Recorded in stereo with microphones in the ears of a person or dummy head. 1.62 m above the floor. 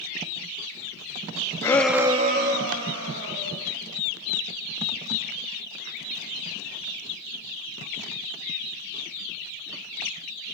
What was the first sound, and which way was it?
A shout, 15° left (ahead or behind).